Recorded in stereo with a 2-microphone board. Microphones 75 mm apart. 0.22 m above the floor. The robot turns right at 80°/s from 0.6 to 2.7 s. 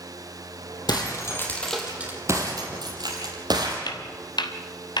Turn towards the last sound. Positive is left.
turn(degrees=85)